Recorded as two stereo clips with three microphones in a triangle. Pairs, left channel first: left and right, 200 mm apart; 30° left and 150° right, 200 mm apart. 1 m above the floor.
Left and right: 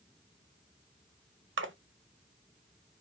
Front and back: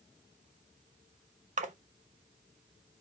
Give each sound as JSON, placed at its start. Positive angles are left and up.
{"t": 1.6, "sound": "a splash", "azimuth_deg": -95, "distance_m": 0.6}